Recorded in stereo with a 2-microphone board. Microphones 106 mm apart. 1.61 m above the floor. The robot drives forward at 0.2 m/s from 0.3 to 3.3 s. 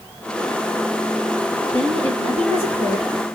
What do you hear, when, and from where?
1.7 s a woman speaking: 70° right (ahead or behind), 2.5 m; by 3.1 s 65° right (ahead or behind), 2.5 m